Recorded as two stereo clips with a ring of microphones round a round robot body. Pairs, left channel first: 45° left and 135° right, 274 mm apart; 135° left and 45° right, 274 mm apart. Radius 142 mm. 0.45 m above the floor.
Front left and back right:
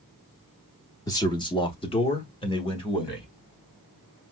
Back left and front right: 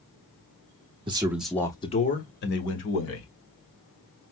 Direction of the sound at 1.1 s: 10° right.